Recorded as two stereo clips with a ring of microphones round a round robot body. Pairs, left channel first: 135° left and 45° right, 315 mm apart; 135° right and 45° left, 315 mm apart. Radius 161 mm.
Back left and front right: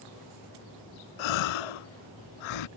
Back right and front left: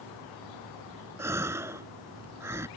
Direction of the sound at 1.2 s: 125° left.